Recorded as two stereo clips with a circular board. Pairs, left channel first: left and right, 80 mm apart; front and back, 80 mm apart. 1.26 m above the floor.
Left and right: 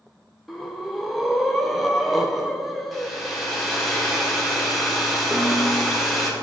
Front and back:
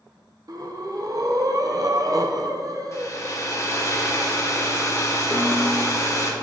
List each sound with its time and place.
0.5 s breathing: straight behind, 0.5 m
2.9 s a hair dryer: straight ahead, 1.0 m
5.3 s a snare drum: 35° right, 0.9 m